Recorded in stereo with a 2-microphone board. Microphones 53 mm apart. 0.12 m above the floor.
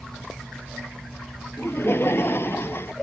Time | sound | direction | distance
1.6 | laughter | 50° left (ahead or behind) | ?